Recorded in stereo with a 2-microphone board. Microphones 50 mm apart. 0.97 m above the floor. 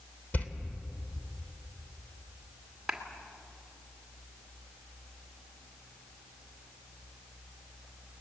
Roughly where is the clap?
Centre.